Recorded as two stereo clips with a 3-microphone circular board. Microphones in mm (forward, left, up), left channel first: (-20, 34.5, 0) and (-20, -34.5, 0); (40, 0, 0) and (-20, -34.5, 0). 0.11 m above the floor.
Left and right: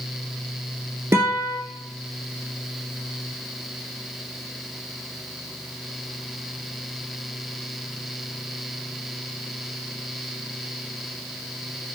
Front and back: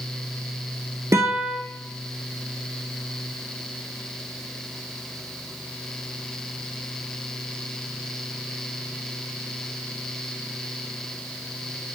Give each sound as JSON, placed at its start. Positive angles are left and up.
{"t": 1.1, "sound": "a guitar", "azimuth_deg": -120, "distance_m": 0.5}